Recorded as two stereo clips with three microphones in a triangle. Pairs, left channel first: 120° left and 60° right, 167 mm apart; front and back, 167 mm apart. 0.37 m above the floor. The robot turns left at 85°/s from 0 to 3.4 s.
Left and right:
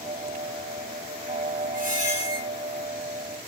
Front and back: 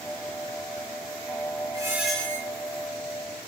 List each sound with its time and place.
1.7 s a squeak: 120° left, 1.2 m; by 2.5 s 60° left, 1.2 m